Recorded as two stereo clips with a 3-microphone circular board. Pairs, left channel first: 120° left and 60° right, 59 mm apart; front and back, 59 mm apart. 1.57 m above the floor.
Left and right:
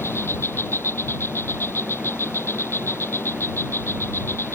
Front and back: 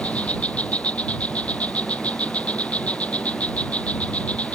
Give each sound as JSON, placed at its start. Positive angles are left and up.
{"t": 0.0, "sound": "an insect", "azimuth_deg": 65}